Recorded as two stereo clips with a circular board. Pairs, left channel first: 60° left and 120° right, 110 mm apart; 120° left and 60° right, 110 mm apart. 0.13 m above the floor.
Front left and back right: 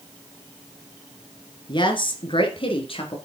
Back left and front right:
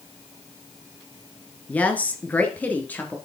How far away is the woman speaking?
About 2 m.